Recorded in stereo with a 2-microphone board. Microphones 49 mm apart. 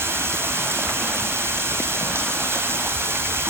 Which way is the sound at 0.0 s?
55° right (ahead or behind).